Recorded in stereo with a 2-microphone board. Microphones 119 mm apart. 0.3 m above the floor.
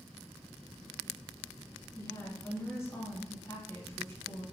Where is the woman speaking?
25° left (ahead or behind), 1.9 m.